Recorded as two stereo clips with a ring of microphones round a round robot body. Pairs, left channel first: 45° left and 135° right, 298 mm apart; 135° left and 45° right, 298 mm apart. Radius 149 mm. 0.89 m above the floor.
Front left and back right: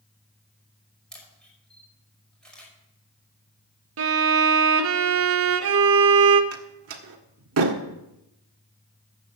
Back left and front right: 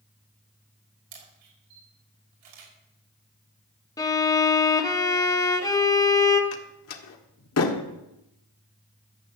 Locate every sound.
1.1 s a camera shutter: 40° right, 5.5 m
4.0 s a violin: 150° right, 1.0 m
6.5 s a door slam: straight behind, 1.7 m